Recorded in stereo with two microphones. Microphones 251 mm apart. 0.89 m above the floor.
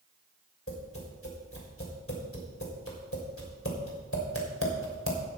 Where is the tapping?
60° left (ahead or behind), 3 m.